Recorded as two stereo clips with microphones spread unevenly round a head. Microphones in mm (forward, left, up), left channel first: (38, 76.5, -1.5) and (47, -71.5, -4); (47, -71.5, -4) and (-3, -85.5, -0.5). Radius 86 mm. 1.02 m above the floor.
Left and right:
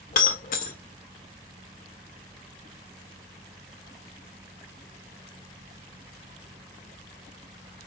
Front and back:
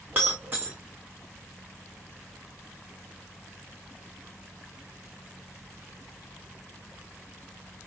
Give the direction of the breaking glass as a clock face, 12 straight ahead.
8 o'clock.